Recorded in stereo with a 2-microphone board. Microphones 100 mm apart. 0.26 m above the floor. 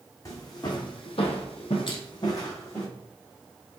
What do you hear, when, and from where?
0.2 s footsteps: 35° left (ahead or behind), 1.1 m; by 2.9 s 30° left (ahead or behind), 1.3 m
1.9 s crushing: 50° left (ahead or behind), 0.8 m